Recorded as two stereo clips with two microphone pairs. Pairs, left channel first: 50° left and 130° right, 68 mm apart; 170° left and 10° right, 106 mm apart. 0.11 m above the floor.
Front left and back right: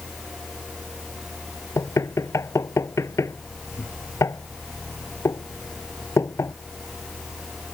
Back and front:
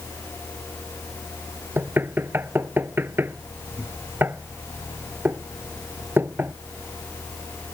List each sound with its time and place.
1.8 s knocking: 55° left